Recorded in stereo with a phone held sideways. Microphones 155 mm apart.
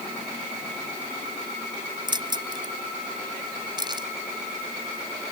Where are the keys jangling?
30° right (ahead or behind).